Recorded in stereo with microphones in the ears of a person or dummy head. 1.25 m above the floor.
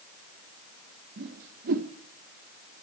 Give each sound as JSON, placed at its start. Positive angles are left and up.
{"t": 1.2, "sound": "a whoosh", "side_deg": -45, "distance_m": 0.9}